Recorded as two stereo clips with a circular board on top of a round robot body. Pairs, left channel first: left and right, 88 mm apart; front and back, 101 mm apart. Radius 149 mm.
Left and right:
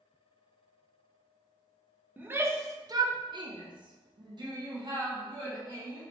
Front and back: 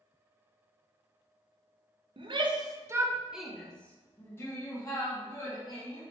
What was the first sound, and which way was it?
A shout, 160° right.